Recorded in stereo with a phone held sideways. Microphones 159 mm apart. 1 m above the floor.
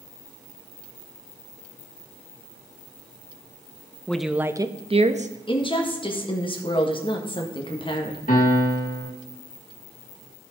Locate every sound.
4.1 s a woman speaking: 5° left (ahead or behind), 0.6 m; by 5.3 s 50° right (ahead or behind), 0.8 m
5.5 s a woman speaking: 30° left (ahead or behind), 1.5 m
8.3 s a piano: 60° left (ahead or behind), 2 m